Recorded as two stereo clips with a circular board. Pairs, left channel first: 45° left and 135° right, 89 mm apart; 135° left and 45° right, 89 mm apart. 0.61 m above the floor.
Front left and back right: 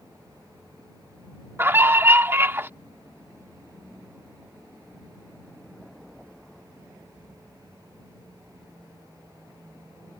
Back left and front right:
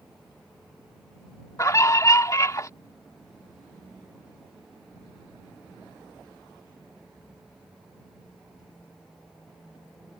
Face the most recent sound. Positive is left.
turn(degrees=170)